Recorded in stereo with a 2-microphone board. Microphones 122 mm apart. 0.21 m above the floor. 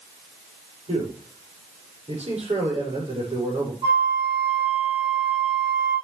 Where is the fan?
No fan in this recording.